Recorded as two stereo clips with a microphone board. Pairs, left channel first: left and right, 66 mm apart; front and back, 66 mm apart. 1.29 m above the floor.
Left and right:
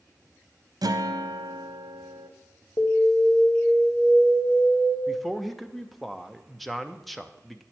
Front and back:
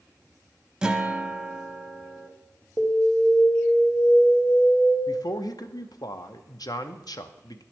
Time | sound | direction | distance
0.8 | a guitar | 100° right | 0.6 m
2.8 | an alarm | 55° left | 0.9 m
5.1 | a man speaking | straight ahead | 0.6 m